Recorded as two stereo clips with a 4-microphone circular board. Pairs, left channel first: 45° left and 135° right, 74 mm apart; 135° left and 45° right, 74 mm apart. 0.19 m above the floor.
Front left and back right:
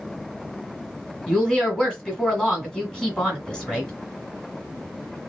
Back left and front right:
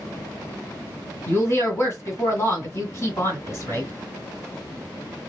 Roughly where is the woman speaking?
Behind left.